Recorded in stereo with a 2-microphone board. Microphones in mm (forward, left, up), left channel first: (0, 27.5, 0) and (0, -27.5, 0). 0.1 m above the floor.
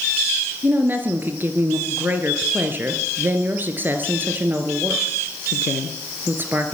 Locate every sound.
0.6 s a woman speaking: 35° right (ahead or behind), 2.0 m